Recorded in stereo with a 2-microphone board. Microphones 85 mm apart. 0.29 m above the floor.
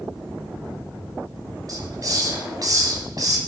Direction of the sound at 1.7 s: 45° right (ahead or behind).